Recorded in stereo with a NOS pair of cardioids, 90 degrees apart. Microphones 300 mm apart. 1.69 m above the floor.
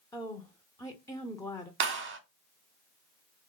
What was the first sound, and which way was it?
A woman speaking, 10° left.